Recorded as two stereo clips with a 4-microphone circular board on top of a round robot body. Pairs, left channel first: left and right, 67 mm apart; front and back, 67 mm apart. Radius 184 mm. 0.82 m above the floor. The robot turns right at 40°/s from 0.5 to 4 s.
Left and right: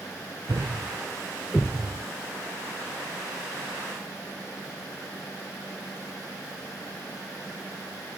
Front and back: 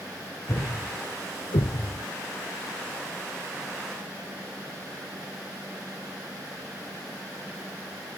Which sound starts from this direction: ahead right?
A thud, at 0.5 s.